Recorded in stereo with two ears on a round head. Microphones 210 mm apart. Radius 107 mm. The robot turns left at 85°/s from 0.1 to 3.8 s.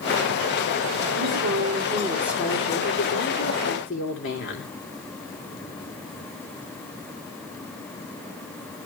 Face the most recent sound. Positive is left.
turn(degrees=55)